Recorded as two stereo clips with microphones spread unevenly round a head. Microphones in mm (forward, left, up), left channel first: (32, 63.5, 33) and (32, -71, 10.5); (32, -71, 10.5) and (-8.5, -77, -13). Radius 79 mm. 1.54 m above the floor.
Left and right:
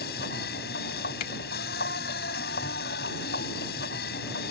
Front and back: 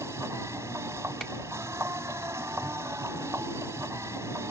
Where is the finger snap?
80° left.